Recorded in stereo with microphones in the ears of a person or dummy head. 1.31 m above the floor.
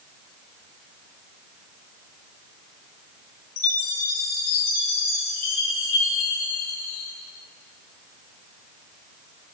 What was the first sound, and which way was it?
A chime, 50° left (ahead or behind).